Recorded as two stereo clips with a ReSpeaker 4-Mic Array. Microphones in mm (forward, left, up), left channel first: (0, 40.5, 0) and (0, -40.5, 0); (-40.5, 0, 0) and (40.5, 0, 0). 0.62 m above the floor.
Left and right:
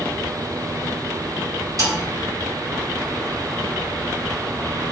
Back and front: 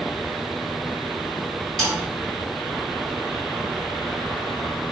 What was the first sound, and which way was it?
A snare drum, 95° right.